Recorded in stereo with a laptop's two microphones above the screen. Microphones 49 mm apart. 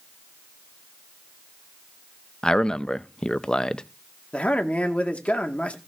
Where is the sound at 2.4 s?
15° left (ahead or behind), 0.6 m.